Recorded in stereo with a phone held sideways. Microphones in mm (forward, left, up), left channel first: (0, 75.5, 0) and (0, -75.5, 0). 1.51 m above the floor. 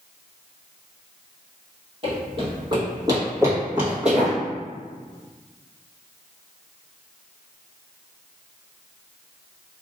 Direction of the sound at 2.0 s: 40° right (ahead or behind).